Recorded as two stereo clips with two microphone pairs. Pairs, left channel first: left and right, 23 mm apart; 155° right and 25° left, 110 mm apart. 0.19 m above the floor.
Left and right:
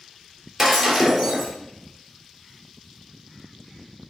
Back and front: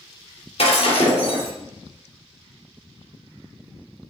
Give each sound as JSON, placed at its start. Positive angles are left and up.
{"t": 0.6, "sound": "breaking glass", "azimuth_deg": -170, "distance_m": 2.5}